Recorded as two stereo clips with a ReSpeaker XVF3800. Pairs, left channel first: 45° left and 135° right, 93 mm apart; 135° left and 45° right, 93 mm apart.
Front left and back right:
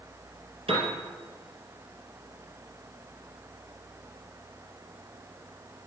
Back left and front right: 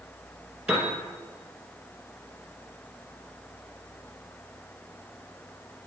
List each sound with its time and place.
0.7 s a piano: 120° right, 1.8 m